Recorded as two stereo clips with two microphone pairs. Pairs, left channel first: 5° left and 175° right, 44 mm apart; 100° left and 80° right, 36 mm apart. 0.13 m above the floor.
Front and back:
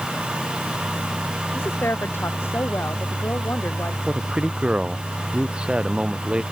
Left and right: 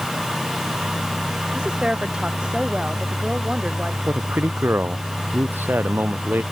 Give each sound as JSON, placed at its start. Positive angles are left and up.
{"t": 1.5, "sound": "a woman speaking", "azimuth_deg": -20}
{"t": 4.1, "sound": "a man speaking", "azimuth_deg": -110}